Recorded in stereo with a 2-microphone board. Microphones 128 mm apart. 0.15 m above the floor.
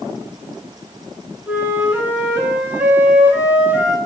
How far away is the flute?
About 0.6 m.